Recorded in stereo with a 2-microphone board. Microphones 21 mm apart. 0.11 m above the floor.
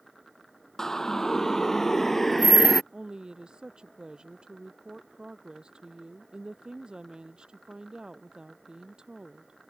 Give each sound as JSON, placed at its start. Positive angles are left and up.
{"t": 0.8, "sound": "a siren", "side_deg": 20}
{"t": 2.9, "sound": "a woman speaking", "side_deg": -40}